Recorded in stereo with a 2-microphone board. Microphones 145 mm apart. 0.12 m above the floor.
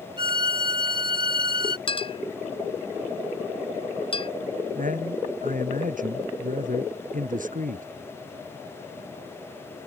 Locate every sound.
0.2 s a violin: 35° right (ahead or behind)
1.9 s a clink: 40° left (ahead or behind)
4.8 s a man speaking: 70° right (ahead or behind)